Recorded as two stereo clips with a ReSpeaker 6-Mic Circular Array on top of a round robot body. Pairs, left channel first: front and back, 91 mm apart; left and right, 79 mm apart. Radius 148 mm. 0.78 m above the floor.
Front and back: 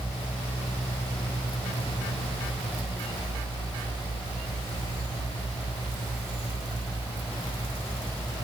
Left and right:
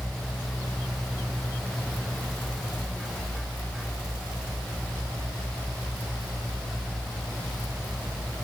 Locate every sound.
Only background noise.